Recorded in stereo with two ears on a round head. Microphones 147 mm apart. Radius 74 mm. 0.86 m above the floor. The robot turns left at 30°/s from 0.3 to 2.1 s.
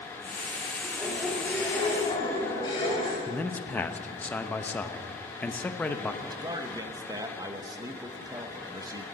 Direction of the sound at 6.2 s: 25° right (ahead or behind).